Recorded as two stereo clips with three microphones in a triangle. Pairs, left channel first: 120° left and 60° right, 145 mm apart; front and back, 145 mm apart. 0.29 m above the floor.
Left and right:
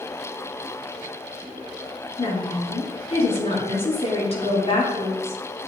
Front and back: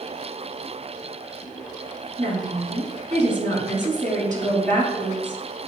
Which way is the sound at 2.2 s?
165° left.